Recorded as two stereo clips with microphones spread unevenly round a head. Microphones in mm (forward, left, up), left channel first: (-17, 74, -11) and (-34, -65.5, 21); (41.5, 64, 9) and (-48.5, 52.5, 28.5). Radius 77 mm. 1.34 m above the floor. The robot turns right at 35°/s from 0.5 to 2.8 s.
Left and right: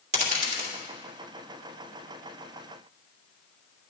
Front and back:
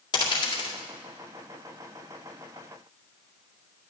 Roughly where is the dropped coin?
Ahead right.